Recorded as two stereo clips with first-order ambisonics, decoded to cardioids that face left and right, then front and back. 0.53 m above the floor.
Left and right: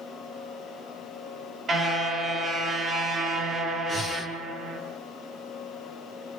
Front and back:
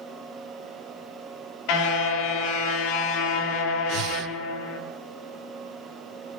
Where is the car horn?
25° right, 4.5 m.